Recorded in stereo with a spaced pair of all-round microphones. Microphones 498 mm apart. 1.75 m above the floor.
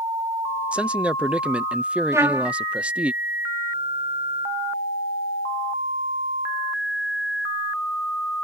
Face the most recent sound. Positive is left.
turn(degrees=-5)  # may be behind; listen again after turning